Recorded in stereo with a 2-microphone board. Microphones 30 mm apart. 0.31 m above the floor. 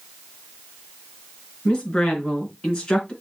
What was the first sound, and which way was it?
A woman speaking, 30° left (ahead or behind).